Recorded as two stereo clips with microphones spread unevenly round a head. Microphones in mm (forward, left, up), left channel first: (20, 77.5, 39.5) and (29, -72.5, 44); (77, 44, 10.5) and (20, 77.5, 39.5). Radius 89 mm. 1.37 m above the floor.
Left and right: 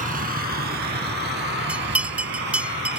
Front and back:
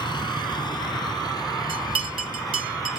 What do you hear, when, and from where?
0.0 s a vehicle: 55° right; by 3.0 s 85° right
1.7 s a bell: 170° right